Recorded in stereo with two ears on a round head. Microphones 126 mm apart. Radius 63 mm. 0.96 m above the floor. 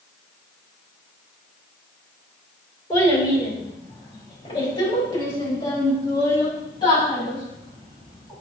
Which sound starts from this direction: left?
A child speaking, at 2.9 s.